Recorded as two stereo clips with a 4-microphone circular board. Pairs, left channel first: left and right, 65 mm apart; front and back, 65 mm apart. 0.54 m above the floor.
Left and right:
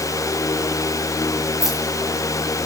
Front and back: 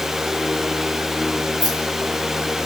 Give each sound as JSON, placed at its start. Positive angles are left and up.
{"t": 1.6, "sound": "keys jangling", "azimuth_deg": -175, "distance_m": 7.5}